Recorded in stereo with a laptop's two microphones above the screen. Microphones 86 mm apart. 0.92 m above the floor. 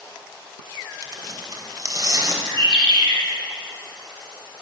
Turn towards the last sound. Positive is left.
turn(degrees=-70)  # may be behind; listen again after turning